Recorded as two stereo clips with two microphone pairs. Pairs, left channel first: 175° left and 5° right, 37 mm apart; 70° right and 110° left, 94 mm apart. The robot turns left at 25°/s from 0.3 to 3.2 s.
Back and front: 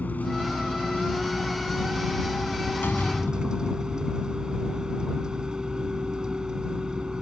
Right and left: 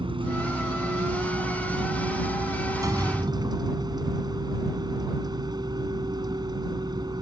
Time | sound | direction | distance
0.0 | a vehicle | 140° left | ?
2.8 | a door slam | 160° left | ?